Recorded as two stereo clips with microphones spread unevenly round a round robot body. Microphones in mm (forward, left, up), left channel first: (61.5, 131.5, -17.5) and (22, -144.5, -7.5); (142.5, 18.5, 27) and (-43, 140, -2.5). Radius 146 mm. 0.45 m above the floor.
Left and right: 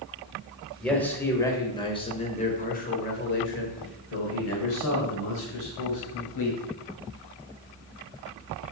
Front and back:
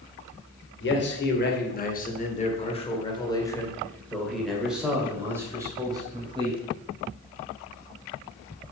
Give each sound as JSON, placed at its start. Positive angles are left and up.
{"t": 0.8, "sound": "a man speaking", "azimuth_deg": -5, "distance_m": 2.0}